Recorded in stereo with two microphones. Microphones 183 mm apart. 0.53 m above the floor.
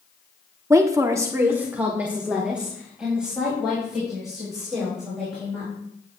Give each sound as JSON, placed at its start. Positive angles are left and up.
{"t": 0.7, "sound": "a woman speaking", "side_deg": -15, "distance_m": 1.1}